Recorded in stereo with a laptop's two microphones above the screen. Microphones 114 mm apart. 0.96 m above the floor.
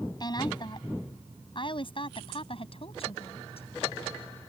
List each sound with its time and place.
0.2 s a woman speaking: 40° left (ahead or behind); by 3.7 s 60° left (ahead or behind)